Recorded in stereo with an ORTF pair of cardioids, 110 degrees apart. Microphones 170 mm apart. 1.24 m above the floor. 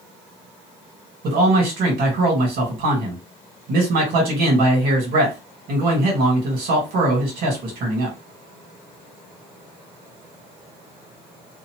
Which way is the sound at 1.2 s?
65° right.